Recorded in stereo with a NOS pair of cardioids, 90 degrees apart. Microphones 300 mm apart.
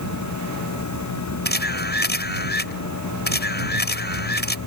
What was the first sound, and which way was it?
A machine running, 65° left.